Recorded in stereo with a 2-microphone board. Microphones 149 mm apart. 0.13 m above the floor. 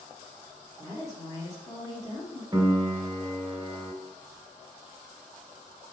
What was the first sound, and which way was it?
A woman speaking, 25° left (ahead or behind).